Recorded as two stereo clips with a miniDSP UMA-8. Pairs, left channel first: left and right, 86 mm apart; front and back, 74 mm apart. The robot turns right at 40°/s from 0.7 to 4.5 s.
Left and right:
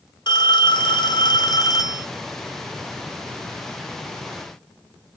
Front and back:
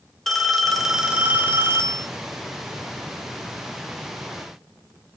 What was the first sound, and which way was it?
A phone ringing, 90° left.